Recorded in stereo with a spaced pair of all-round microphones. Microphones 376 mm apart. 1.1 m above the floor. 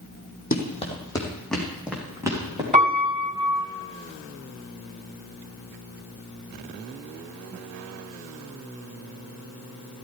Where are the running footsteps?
25° left (ahead or behind), 2.5 m; by 2.6 s 10° right (ahead or behind), 4.5 m.